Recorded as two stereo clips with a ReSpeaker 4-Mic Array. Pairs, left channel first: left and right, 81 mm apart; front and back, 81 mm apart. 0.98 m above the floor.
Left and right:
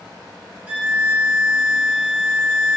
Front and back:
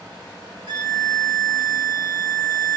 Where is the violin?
160° right, 0.7 m.